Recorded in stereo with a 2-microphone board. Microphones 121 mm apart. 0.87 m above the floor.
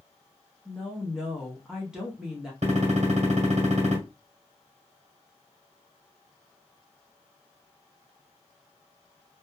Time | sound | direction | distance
0.7 | a woman speaking | 5° right (ahead or behind) | 0.8 m
2.6 | a gunshot | 70° right (ahead or behind) | 1.4 m